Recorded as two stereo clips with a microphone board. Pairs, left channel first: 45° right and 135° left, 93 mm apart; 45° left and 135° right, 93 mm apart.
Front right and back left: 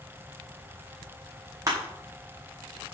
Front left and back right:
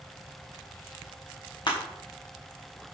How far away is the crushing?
About 5.5 m.